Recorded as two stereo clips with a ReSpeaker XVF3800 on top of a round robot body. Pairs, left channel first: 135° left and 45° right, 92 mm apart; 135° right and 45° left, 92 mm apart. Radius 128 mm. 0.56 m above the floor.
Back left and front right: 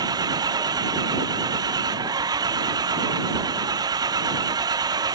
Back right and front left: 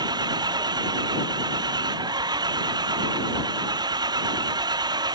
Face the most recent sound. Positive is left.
turn(degrees=0)